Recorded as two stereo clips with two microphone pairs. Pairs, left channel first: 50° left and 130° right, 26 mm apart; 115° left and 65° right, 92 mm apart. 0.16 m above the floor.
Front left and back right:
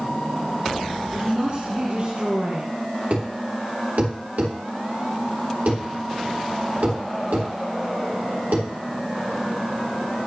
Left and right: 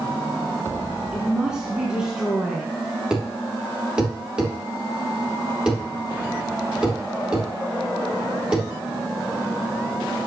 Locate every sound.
1.1 s a woman speaking: 145° right, 1.9 m
3.1 s a thud: 150° right, 3 m